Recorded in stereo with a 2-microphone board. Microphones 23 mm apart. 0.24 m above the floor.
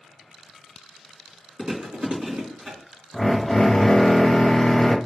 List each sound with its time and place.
1.6 s chewing: 55° right (ahead or behind), 3 m
3.1 s a drill: 30° left (ahead or behind), 1.1 m